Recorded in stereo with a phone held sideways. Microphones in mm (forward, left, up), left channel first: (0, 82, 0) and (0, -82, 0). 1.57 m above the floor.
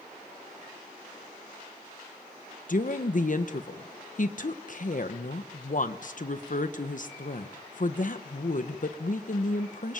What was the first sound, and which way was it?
A woman speaking, 60° left (ahead or behind).